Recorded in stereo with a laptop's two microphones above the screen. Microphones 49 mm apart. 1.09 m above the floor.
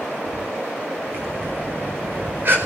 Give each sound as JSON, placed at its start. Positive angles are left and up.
{"t": 1.1, "sound": "breathing", "side_deg": -50, "distance_m": 4.5}